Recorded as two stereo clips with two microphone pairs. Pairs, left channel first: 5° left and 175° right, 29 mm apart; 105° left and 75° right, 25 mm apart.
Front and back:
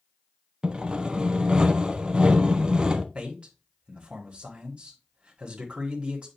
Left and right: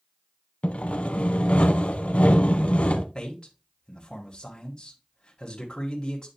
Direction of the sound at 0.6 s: 125° left.